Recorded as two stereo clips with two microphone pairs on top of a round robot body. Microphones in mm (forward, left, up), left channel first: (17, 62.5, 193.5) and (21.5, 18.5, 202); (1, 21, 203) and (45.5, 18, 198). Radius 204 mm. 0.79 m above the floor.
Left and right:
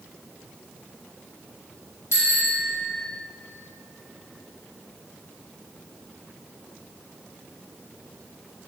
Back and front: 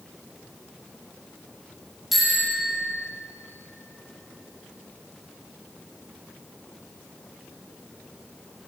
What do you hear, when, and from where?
2.1 s a bicycle bell: 85° left, 4.5 m